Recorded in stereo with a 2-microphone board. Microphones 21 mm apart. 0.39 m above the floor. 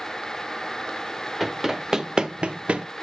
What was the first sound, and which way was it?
Running footsteps, 10° right (ahead or behind).